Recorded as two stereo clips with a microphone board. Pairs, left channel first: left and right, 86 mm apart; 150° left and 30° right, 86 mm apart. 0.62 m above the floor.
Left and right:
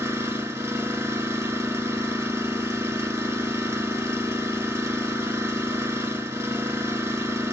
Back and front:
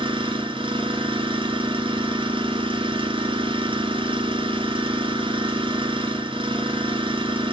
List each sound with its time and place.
0.0 s an engine running: 25° right, 1.8 m